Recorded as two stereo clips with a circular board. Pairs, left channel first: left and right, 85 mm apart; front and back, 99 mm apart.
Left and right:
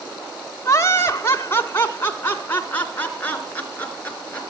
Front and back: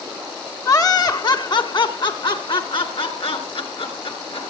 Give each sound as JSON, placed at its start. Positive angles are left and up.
{"t": 0.7, "sound": "laughter", "azimuth_deg": 45, "distance_m": 2.0}